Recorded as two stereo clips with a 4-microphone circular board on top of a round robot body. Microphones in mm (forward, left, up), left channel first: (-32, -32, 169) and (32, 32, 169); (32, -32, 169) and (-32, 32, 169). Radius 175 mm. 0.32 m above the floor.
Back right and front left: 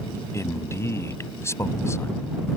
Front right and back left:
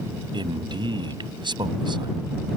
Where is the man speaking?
165° left.